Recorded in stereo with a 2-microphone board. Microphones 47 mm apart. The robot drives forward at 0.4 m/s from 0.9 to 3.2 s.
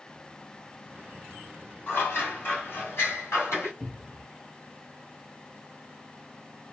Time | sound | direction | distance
1.9 | scissors | 50° left (ahead or behind) | 1.7 m
3.8 | a cupboard door | 5° right (ahead or behind) | 0.5 m